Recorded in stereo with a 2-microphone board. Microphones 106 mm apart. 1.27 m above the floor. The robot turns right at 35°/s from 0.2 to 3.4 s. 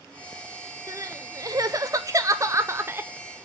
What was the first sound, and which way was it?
Crying, 115° right.